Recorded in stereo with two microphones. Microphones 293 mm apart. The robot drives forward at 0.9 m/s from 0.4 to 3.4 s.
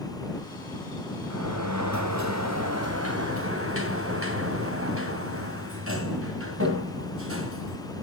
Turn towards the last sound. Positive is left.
turn(degrees=-50)  # may be behind; listen again after turning